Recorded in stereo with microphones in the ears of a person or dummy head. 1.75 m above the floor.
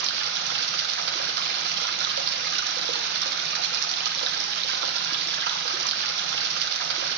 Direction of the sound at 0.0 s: 65° right (ahead or behind).